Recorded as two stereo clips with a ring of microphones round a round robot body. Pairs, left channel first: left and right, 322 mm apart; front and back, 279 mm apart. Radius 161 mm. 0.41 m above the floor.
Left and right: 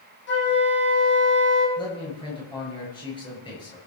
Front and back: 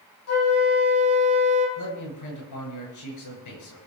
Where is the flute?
30° left, 5 m.